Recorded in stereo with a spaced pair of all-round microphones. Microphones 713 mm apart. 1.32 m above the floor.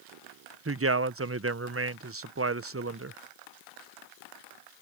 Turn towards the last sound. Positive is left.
turn(degrees=-20)  # may be behind; listen again after turning